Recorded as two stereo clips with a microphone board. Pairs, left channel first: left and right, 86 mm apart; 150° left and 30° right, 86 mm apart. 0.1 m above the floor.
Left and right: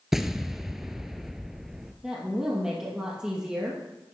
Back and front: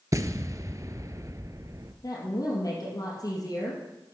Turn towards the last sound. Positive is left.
turn(degrees=-170)